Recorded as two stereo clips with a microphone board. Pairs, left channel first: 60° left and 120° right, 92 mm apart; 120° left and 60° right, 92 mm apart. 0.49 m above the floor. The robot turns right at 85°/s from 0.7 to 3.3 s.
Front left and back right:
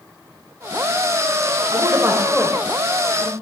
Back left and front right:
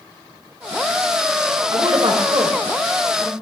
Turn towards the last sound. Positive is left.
turn(degrees=45)